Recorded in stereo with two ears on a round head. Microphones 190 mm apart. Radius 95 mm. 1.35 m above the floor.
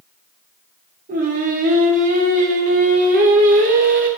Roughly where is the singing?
Right.